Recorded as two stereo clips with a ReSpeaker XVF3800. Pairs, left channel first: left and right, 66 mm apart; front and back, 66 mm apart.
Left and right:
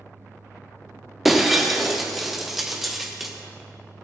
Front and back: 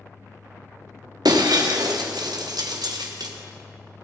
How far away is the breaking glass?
About 3 m.